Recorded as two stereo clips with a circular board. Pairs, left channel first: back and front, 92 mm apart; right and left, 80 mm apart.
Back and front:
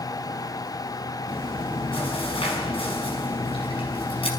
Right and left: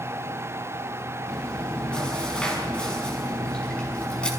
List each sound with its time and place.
1.3 s chewing: 170° right, 5 m